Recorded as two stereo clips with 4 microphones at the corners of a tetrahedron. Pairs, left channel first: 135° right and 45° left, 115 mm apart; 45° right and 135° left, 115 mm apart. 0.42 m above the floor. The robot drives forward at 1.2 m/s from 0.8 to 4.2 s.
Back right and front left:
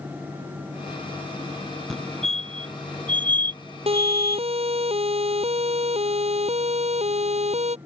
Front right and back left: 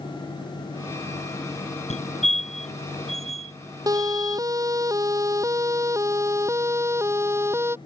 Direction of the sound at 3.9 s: 75° left.